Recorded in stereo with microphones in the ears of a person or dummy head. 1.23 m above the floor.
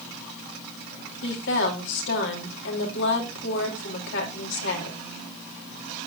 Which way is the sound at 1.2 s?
60° left (ahead or behind).